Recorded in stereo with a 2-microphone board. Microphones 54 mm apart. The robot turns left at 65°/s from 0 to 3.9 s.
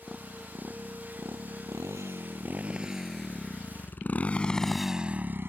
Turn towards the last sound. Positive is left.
turn(degrees=-45)  # may be behind; listen again after turning